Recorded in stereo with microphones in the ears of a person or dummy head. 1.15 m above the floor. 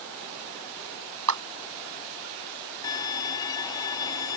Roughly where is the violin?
Left.